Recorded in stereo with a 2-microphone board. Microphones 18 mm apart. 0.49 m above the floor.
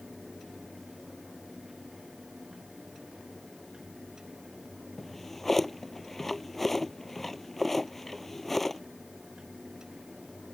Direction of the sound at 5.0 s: 10° left (ahead or behind).